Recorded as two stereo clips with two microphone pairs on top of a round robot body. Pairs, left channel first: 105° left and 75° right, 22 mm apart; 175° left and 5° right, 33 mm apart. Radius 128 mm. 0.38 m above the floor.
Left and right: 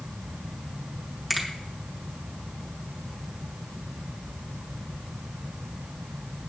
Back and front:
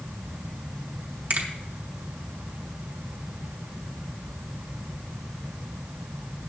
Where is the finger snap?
10° left, 3 m.